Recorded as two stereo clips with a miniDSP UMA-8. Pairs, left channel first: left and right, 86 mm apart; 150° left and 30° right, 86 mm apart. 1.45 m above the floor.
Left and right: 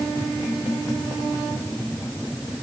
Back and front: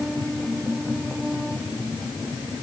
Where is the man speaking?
No man speaking in this recording.